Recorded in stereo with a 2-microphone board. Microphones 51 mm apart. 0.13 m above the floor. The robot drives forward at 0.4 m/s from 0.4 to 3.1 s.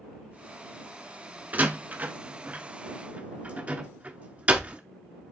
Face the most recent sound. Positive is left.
turn(degrees=-30)  # may be behind; listen again after turning